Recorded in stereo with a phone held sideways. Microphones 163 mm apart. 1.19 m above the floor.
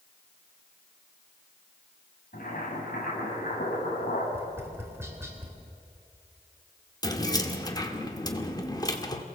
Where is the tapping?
15° right (ahead or behind), 3.5 m.